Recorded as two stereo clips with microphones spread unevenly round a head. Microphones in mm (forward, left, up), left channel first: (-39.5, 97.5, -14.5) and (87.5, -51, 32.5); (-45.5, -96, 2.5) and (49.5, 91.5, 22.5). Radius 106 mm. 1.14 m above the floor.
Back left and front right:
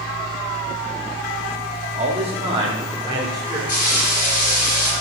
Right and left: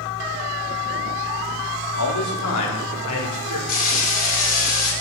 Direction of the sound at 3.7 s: 170° right.